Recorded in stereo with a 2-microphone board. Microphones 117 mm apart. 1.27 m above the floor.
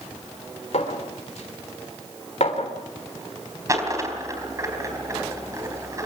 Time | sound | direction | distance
0.7 | a clink | 75° left (ahead or behind) | 3.5 m
3.7 | a dropped coin | 30° right (ahead or behind) | 4 m